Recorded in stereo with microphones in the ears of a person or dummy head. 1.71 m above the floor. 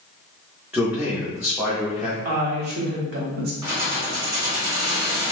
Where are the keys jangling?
20° right (ahead or behind), 1.2 m.